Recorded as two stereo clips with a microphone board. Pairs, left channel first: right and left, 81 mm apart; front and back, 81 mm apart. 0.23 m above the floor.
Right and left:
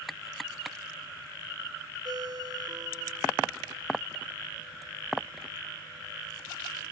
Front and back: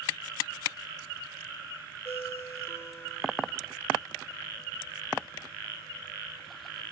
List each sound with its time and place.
2.0 s a ringtone: 60° left